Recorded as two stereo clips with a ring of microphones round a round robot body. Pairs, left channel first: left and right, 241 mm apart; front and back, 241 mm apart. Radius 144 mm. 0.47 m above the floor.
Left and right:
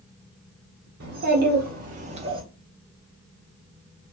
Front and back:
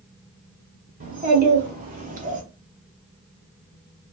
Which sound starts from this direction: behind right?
A child speaking, at 1.0 s.